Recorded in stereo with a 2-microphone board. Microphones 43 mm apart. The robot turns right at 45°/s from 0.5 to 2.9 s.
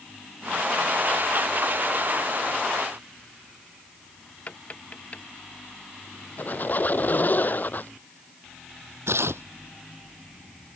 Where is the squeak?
45° left (ahead or behind).